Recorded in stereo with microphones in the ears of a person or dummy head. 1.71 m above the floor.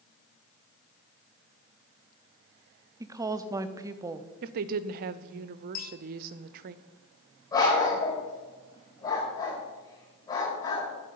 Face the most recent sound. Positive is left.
turn(degrees=25)  # may be behind; listen again after turning